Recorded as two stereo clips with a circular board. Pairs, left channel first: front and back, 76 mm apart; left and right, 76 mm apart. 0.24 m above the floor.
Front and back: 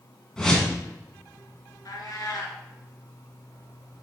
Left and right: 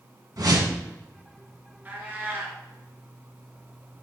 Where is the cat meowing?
30° right, 2 m.